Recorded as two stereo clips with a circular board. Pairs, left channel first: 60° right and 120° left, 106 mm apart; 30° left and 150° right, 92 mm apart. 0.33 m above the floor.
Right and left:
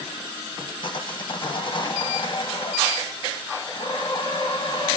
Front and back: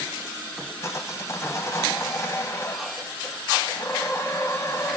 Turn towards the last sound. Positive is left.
turn(degrees=-25)